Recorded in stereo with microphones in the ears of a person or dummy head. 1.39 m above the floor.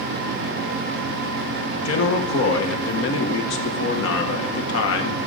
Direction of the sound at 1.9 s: 80° left.